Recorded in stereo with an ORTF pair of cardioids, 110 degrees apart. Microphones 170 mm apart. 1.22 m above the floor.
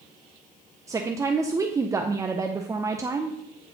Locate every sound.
0.9 s a woman speaking: 20° right, 0.7 m